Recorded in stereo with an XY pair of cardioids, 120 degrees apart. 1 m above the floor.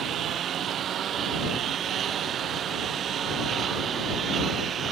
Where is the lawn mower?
55° right; by 4.9 s 45° right.